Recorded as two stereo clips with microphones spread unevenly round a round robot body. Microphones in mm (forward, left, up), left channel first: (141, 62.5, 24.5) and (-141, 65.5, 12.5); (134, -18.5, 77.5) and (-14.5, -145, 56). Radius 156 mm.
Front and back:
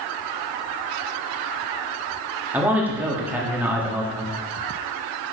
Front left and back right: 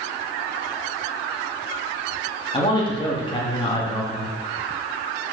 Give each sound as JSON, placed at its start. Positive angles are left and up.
{"t": 2.5, "sound": "a man speaking", "azimuth_deg": 100, "distance_m": 1.5}